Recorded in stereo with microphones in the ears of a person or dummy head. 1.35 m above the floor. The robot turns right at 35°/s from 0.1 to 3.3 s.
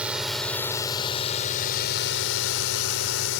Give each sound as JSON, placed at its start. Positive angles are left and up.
{"t": 0.0, "sound": "a drone", "azimuth_deg": -5}